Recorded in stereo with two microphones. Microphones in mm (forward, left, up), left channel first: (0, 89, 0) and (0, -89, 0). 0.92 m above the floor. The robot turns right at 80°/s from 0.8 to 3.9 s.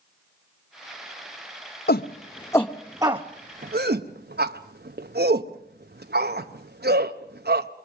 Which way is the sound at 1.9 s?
65° left (ahead or behind).